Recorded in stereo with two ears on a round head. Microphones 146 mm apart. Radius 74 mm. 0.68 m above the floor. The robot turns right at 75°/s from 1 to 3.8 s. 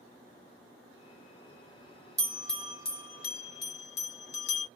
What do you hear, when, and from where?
2.2 s a bell: 20° right (ahead or behind), 1.4 m; by 4.7 s 75° left (ahead or behind), 1.4 m